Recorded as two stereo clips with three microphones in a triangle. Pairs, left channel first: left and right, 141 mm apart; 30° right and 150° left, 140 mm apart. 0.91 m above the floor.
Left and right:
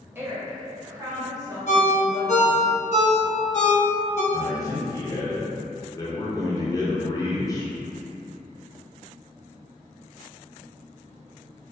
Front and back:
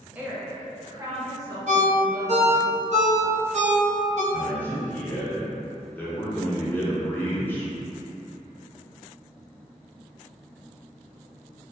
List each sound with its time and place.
0.1 s a woman speaking: 145° right, 0.6 m; by 2.7 s 150° right, 1.6 m
1.7 s a ringtone: 120° left, 0.6 m
4.3 s a man speaking: 40° left, 0.6 m